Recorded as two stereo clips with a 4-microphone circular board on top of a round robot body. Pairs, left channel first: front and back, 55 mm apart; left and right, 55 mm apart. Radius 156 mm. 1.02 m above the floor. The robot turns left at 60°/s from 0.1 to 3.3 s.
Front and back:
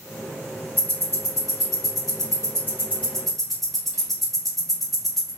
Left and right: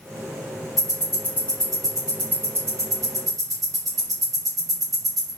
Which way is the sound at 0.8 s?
70° left.